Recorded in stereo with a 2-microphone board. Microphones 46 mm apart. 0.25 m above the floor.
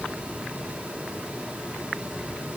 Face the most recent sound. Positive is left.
No sound to turn to.